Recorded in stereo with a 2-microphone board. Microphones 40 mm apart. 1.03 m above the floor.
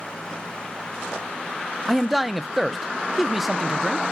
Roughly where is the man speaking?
Centre.